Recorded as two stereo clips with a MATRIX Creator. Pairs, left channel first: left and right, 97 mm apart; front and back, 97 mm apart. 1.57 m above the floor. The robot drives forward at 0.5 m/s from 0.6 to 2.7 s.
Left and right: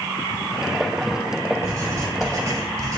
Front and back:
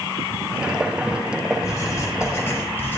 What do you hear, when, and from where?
1.6 s writing: 45° right, 2 m; by 3.0 s 60° right, 1.8 m